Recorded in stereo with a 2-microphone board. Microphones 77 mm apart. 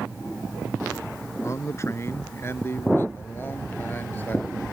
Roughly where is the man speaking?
Left.